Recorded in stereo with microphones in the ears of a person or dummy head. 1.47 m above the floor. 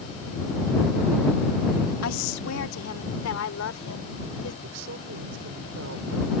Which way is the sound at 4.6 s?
75° right (ahead or behind).